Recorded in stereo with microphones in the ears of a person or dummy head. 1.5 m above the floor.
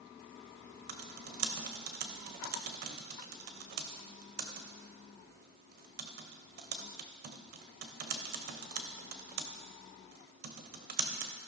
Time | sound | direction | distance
0.9 | typing on a keyboard | 50° right (ahead or behind) | 0.8 m